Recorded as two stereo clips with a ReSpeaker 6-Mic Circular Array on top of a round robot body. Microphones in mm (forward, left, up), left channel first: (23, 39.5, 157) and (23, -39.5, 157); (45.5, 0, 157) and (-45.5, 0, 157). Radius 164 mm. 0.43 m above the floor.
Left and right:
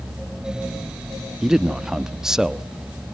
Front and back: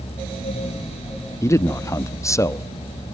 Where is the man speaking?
15° right, 1.2 m.